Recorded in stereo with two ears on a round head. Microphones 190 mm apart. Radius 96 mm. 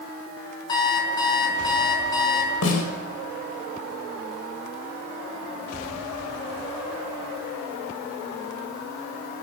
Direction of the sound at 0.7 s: 20° left (ahead or behind).